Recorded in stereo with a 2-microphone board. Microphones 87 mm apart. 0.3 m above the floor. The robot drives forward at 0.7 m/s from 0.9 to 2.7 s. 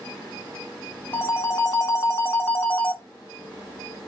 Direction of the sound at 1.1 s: 30° left (ahead or behind).